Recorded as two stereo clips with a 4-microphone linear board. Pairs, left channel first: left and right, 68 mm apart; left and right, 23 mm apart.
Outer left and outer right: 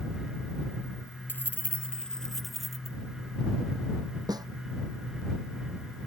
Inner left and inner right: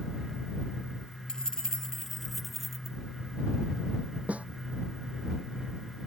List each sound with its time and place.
1.3 s keys jangling: 30° left (ahead or behind); by 3.0 s 5° right (ahead or behind)
4.3 s a snare drum: 75° right (ahead or behind)